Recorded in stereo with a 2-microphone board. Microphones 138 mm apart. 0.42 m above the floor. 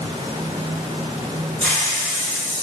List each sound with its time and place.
1.6 s a hiss: 10° left (ahead or behind), 1.9 m